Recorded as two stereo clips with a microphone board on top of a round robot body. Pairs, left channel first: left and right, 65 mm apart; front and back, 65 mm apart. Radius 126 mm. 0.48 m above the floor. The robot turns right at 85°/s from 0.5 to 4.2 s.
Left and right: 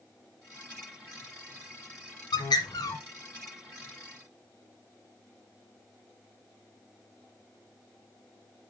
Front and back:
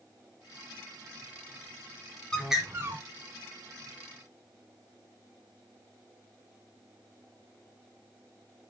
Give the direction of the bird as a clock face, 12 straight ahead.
9 o'clock.